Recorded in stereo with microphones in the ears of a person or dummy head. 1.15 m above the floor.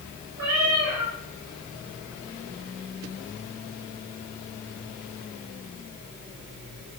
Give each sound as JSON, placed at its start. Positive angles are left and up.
{"t": 0.4, "sound": "a cat meowing", "side_deg": -70, "distance_m": 3.0}